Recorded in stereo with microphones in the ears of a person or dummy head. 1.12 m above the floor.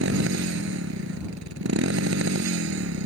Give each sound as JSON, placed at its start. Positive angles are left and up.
{"t": 0.0, "sound": "a motorcycle", "side_deg": -65}